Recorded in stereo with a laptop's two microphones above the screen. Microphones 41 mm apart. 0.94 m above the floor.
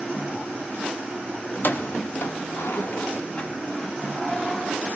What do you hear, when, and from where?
1.5 s keys jangling: 50° left (ahead or behind), 0.7 m; by 5.0 s 10° left (ahead or behind), 1.7 m